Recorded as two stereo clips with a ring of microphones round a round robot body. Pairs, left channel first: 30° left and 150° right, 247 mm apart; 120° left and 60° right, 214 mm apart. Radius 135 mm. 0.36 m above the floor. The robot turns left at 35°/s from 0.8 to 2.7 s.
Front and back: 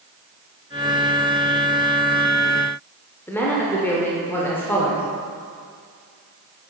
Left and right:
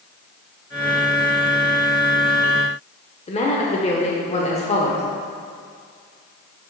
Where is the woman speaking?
105° left, 0.9 m.